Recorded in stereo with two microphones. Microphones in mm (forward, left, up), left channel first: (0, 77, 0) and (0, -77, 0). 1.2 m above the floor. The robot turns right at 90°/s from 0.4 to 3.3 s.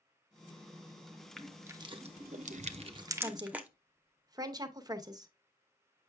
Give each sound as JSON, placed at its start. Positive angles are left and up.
{"t": 1.4, "sound": "crushing", "side_deg": 5, "distance_m": 0.8}
{"t": 3.2, "sound": "a woman speaking", "side_deg": -20, "distance_m": 0.9}